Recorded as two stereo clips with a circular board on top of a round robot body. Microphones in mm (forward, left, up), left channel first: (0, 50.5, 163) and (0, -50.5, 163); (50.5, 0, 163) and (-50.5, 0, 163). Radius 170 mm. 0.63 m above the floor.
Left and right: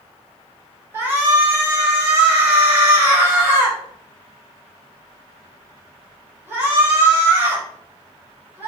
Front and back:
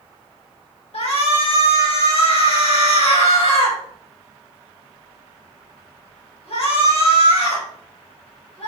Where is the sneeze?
I don't hear a sneeze.